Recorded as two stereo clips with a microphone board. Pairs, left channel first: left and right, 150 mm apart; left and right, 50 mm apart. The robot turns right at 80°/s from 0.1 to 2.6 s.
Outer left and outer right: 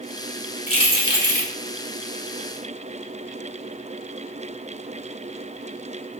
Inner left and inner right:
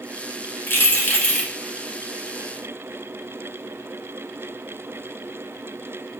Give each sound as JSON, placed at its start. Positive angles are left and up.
{"t": 0.7, "sound": "keys jangling", "azimuth_deg": 95, "distance_m": 1.0}